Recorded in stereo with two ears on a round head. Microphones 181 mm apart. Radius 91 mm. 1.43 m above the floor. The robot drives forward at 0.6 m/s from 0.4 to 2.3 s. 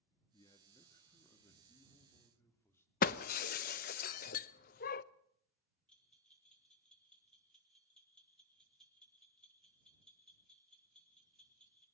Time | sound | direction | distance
0.3 | a man speaking | 20° left (ahead or behind) | 2 m
3.0 | breaking glass | 45° left (ahead or behind) | 0.7 m
5.9 | a bell | 5° left (ahead or behind) | 4 m